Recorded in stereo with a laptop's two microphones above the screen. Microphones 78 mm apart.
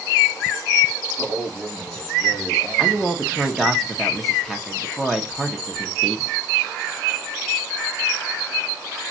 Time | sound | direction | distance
1.2 | a man speaking | 50° left (ahead or behind) | 3 m
2.8 | a man speaking | centre (ahead or behind) | 1.3 m